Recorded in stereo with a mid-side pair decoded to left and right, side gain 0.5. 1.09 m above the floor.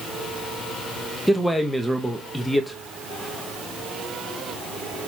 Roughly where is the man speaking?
Ahead.